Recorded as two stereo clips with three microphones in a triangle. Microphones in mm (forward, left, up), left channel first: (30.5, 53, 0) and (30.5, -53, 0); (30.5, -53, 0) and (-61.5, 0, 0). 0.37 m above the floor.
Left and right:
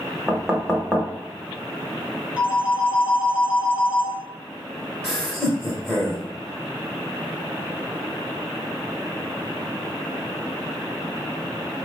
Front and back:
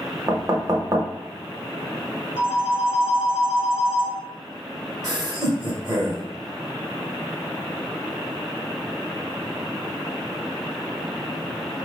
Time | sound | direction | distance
0.3 | knocking | 170° right | 0.7 m
2.4 | a phone ringing | 10° right | 2 m
5.0 | laughter | 160° left | 1.2 m